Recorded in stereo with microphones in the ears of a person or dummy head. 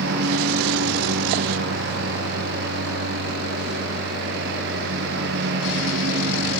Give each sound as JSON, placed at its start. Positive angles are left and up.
{"t": 0.0, "sound": "a lawn mower", "side_deg": -60}